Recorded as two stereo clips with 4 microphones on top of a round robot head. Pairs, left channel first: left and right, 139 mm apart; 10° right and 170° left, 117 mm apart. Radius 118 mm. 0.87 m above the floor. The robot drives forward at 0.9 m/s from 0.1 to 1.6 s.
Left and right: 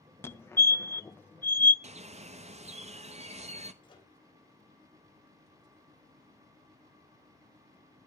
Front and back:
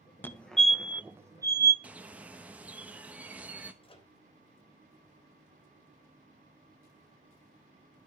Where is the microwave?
30° left, 3 m.